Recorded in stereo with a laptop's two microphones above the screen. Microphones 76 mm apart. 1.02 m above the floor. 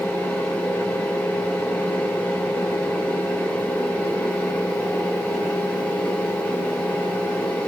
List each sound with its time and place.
0.0 s a fan: 20° left (ahead or behind), 1.2 m